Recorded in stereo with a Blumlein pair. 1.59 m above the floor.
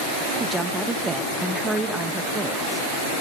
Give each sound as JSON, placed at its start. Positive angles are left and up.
{"t": 0.4, "sound": "a woman speaking", "azimuth_deg": -10, "distance_m": 1.6}